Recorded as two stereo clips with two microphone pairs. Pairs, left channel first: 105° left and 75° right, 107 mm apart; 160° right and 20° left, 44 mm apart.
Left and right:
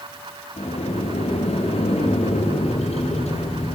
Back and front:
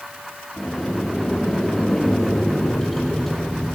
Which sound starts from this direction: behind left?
A sliding door, at 0.6 s.